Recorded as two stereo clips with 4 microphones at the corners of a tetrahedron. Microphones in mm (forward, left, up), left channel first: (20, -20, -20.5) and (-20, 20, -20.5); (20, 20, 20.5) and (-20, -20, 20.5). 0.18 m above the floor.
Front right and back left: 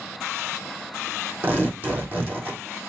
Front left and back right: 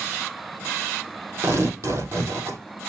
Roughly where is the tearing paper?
Behind.